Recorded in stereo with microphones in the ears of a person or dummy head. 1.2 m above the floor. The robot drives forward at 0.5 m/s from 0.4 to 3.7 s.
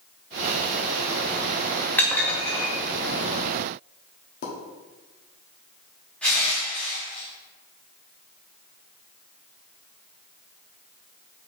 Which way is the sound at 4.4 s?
50° left (ahead or behind).